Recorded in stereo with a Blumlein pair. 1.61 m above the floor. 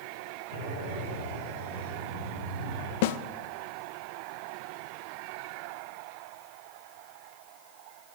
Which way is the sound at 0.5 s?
50° right.